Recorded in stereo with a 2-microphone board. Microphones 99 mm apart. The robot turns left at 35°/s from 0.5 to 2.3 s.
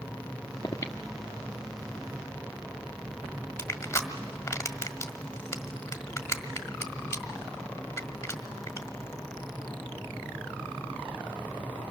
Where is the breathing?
35° left (ahead or behind), 1.2 m; by 4.5 s 20° right (ahead or behind), 1.2 m.